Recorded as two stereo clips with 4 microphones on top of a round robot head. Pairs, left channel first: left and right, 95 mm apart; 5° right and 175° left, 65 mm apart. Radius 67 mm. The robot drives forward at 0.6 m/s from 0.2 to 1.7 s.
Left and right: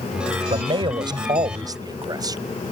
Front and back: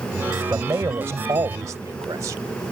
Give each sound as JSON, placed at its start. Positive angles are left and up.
{"t": 0.5, "sound": "a man speaking", "azimuth_deg": -120}